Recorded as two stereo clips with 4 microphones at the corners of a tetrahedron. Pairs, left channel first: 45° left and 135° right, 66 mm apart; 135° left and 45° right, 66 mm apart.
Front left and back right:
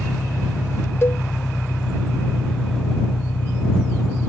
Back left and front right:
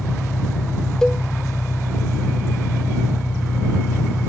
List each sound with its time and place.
0.0 s an engine running: 110° left
1.0 s a cowbell: 60° left